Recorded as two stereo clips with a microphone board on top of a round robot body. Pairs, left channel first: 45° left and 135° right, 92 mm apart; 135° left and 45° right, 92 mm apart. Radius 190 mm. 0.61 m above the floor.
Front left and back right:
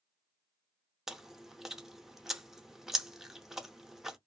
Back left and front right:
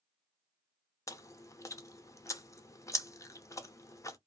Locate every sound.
1.1 s chewing: 145° left, 0.7 m